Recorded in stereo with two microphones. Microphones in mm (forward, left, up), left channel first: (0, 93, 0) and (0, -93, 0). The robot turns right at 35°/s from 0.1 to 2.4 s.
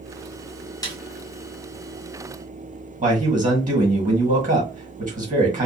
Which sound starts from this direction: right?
A man speaking, at 3.0 s.